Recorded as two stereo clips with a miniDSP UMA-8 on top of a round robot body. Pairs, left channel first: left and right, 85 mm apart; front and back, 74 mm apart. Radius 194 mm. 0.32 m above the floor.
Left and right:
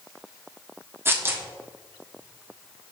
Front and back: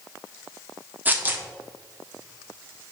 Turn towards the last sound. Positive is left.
turn(degrees=-135)